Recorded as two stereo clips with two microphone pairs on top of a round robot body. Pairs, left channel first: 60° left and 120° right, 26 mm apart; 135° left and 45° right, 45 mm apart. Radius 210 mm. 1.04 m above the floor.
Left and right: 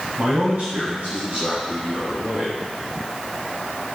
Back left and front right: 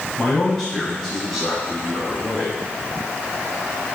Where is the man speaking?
145° right, 6.5 m; by 2.6 s 130° right, 8.5 m.